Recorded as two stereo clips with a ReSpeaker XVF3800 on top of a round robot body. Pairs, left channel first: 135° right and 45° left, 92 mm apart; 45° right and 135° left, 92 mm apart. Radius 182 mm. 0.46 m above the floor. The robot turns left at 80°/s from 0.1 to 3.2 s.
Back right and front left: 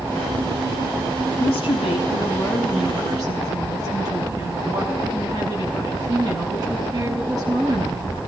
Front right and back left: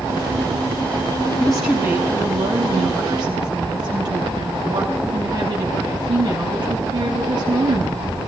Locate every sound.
1.4 s a woman speaking: 125° right, 5.5 m; by 8.3 s 95° left, 5.5 m